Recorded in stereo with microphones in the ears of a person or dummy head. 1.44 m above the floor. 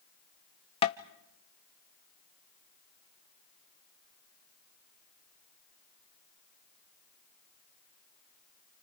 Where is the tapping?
30° left (ahead or behind), 0.8 m.